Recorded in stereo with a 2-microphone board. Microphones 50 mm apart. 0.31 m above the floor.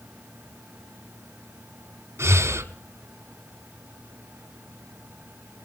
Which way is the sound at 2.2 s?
60° right (ahead or behind).